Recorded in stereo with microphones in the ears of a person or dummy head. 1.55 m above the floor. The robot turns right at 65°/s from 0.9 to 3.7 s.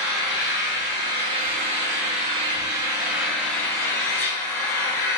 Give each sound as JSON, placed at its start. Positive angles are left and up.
{"t": 0.0, "sound": "an engine running", "azimuth_deg": -150, "distance_m": 0.7}